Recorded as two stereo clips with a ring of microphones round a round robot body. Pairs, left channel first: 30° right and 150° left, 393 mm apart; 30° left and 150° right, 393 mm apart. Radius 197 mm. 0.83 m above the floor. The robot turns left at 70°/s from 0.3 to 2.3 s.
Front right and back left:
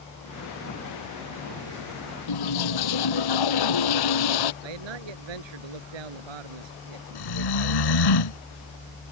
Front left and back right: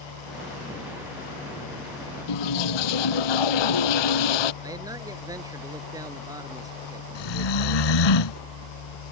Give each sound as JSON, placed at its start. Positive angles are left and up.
{"t": 2.3, "sound": "a toilet flushing", "azimuth_deg": 5}
{"t": 4.6, "sound": "a man speaking", "azimuth_deg": 130}
{"t": 7.2, "sound": "snoring", "azimuth_deg": 5}